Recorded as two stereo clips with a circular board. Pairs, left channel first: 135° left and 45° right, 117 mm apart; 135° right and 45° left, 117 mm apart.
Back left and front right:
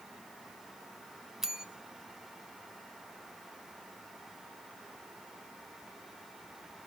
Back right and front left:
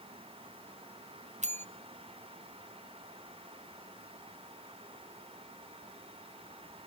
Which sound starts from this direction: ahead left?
A bell, at 1.4 s.